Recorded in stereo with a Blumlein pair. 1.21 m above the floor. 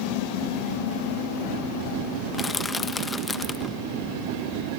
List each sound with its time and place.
2.3 s crushing: 10° left